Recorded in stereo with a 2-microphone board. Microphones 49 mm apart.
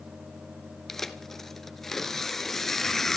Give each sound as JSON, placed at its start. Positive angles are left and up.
{"t": 0.9, "sound": "tearing paper", "side_deg": 5, "distance_m": 1.3}